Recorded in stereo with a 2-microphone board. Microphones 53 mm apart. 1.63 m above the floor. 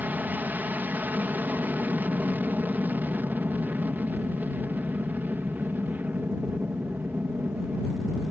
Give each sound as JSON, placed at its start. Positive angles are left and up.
{"t": 0.0, "sound": "an aircraft", "side_deg": -35}